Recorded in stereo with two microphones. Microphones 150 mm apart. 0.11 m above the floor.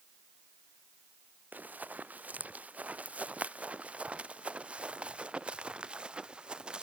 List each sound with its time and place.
1.5 s running footsteps: 10° right (ahead or behind); by 6.8 s 5° right (ahead or behind)